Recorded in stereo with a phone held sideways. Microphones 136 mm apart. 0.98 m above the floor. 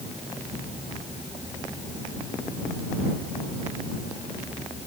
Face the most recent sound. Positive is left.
No sound to turn to.